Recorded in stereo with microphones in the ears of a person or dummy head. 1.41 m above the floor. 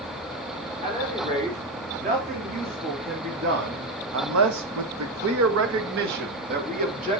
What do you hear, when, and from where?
0.8 s a man speaking: 30° right (ahead or behind), 4.5 m; by 7.2 s 35° right (ahead or behind), 3 m